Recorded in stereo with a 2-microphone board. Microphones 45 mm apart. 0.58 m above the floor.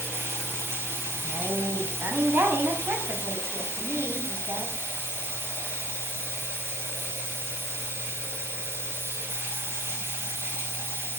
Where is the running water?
70° right (ahead or behind), 4 m.